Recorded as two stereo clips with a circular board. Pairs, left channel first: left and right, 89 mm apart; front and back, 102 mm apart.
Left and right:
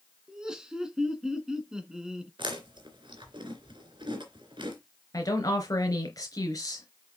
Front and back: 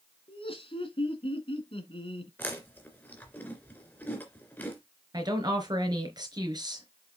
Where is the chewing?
70° right, 3 m.